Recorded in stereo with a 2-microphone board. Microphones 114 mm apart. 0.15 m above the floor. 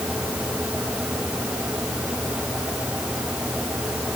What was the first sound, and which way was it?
Only background noise.